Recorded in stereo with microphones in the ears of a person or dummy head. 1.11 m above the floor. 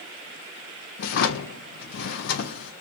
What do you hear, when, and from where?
1.0 s a drawer: 60° left (ahead or behind), 0.5 m